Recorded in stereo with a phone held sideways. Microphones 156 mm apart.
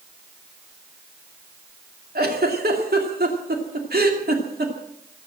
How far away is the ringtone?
I don't hear a ringtone.